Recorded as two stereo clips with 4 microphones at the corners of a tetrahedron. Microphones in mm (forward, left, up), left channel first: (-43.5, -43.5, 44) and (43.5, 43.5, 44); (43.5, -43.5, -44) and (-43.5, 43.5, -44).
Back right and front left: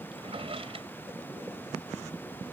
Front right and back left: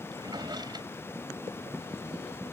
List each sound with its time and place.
0.1 s a drawer: 85° left